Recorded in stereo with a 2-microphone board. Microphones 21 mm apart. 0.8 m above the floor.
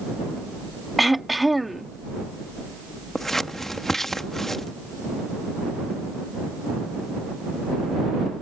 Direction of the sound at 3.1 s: 15° left (ahead or behind).